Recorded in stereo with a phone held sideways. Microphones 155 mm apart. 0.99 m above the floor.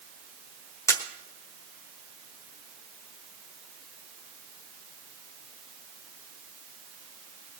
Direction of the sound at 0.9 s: 15° left (ahead or behind).